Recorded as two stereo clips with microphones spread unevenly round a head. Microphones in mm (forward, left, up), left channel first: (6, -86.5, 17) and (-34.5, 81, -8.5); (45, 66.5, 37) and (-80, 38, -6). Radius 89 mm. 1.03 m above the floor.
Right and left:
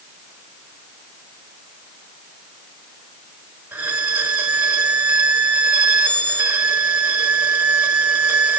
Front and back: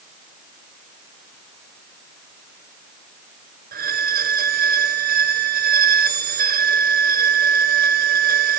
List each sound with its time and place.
3.7 s a violin: 170° right, 1.6 m